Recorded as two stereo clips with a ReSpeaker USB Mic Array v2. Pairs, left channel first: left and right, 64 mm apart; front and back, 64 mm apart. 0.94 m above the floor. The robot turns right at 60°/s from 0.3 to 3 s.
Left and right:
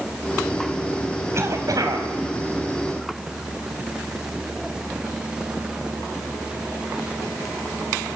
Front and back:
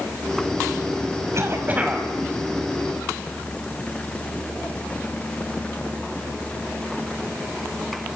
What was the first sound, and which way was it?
A cough, 140° right.